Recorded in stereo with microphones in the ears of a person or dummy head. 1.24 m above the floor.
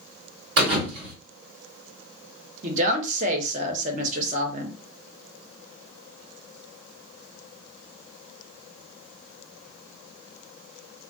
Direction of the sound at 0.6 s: 60° right (ahead or behind).